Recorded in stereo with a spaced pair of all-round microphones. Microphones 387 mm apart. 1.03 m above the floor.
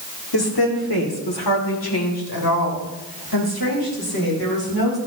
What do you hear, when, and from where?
0.3 s a woman speaking: 85° left, 2 m; by 5.0 s 75° left (ahead or behind), 5 m